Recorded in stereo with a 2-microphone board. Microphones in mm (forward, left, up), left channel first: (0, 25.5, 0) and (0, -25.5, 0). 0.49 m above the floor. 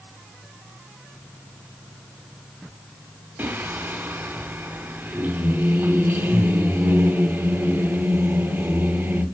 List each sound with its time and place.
3.4 s singing: 40° right (ahead or behind), 0.8 m